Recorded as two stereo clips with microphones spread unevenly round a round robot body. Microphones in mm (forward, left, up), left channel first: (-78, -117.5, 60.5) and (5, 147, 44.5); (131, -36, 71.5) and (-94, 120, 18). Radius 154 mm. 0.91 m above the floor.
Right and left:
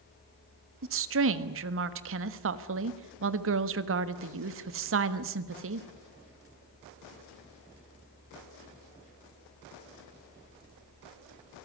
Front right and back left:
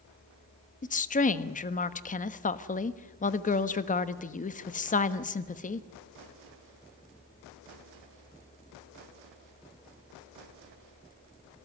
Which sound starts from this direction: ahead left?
A woman speaking, at 0.8 s.